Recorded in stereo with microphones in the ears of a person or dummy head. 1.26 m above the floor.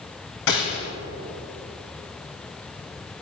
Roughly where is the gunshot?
Left.